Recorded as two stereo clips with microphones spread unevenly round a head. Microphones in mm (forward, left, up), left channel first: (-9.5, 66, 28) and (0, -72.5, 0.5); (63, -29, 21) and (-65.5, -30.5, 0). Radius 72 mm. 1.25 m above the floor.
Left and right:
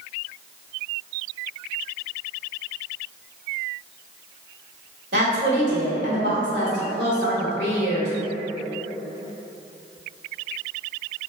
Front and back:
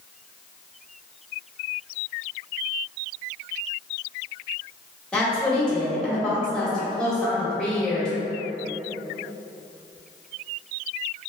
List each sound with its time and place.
5.1 s a woman speaking: 85° right, 1.5 m